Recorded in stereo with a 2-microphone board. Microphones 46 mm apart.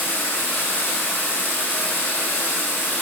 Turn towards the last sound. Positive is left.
turn(degrees=60)  # may be behind; listen again after turning